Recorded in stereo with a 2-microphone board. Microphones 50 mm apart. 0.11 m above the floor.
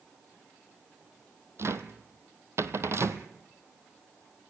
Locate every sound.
1.6 s a cupboard door: 60° right (ahead or behind), 1.2 m